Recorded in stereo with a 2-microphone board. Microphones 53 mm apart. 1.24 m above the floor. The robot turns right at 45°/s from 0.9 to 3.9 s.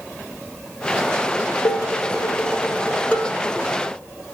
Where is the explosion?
I don't hear an explosion.